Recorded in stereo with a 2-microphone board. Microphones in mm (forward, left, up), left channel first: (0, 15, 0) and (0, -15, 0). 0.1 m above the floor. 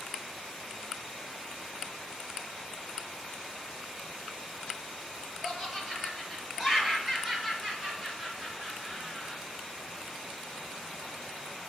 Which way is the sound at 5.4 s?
15° right (ahead or behind).